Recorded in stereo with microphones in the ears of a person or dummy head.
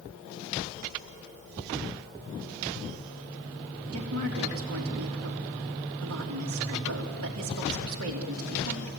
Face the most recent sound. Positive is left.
turn(degrees=-85)